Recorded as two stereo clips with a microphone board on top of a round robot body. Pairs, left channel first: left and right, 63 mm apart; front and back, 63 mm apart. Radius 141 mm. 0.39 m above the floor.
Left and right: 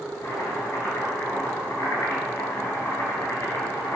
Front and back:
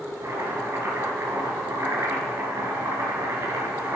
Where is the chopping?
140° left, 4.5 m.